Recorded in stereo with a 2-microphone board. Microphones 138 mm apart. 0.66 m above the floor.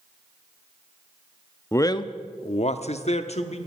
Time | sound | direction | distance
1.7 | a man speaking | 20° left (ahead or behind) | 0.6 m